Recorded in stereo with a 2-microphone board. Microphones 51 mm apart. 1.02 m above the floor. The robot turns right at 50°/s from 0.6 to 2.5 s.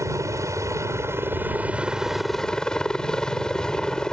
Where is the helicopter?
80° right; by 4.1 s 15° left.